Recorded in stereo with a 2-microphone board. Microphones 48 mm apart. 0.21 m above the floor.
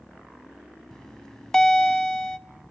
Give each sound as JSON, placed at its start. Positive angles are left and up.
{"t": 0.9, "sound": "a bell", "side_deg": 15, "distance_m": 0.5}